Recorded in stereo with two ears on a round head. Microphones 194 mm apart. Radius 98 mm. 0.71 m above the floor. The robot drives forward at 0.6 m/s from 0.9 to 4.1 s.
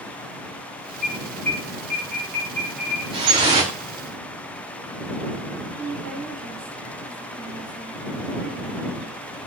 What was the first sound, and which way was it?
An alarm, 5° left (ahead or behind).